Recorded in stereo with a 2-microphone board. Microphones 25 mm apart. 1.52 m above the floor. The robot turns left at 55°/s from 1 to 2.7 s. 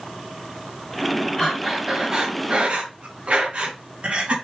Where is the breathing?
25° left, 3.5 m; by 4.3 s 45° right, 3.5 m.